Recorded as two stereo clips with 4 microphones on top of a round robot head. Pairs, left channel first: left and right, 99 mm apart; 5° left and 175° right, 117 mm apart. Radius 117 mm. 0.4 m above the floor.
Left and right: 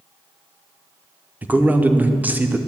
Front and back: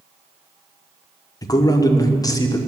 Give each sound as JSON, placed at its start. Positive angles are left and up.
{"t": 1.4, "sound": "a man speaking", "azimuth_deg": -25, "distance_m": 0.9}